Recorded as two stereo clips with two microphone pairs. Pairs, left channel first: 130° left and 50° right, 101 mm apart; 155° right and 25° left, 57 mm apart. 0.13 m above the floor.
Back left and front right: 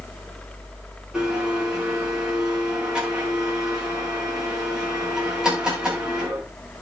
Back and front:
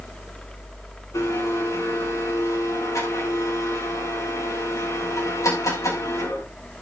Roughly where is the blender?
Behind right.